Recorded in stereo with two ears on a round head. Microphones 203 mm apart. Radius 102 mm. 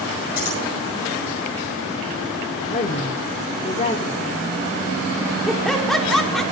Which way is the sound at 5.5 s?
Centre (ahead or behind).